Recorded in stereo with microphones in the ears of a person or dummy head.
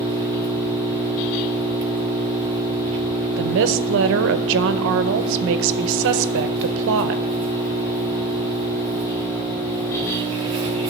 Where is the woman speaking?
70° right (ahead or behind), 0.7 m.